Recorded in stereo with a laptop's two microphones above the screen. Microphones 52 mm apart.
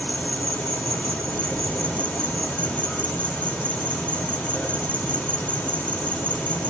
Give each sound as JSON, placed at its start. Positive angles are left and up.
{"t": 0.0, "sound": "an insect", "side_deg": 30, "distance_m": 3.5}